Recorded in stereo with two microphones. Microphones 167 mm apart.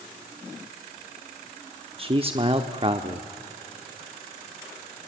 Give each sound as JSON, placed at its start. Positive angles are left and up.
{"t": 2.0, "sound": "a man speaking", "side_deg": -35, "distance_m": 0.9}